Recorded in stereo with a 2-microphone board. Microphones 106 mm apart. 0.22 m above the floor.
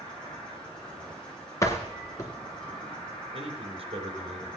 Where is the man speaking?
65° right (ahead or behind), 3.5 m.